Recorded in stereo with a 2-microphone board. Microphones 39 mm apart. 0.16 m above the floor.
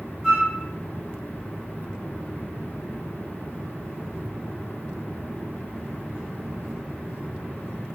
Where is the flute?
10° right (ahead or behind), 1.2 m.